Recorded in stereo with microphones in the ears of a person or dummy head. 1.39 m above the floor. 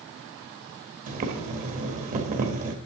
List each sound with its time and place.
1.1 s boiling: 40° right (ahead or behind), 1.4 m